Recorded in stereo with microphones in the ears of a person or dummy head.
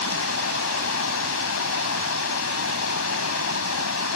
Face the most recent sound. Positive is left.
turn(degrees=80)